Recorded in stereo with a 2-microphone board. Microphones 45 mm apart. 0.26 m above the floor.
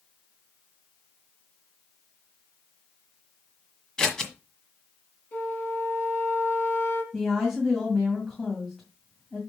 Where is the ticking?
No ticking in this recording.